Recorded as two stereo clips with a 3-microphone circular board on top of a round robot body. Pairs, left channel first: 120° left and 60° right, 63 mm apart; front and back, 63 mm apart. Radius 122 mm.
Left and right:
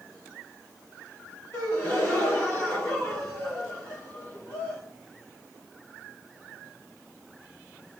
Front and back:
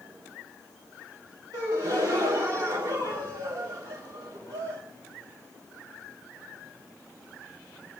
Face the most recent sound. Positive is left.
turn(degrees=175)